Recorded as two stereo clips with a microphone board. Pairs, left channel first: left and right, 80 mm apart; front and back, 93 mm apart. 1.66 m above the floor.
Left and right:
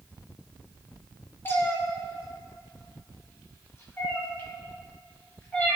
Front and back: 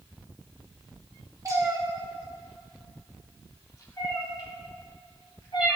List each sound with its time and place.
1.4 s a cat meowing: 145° left, 1.1 m; by 5.8 s 20° left, 2 m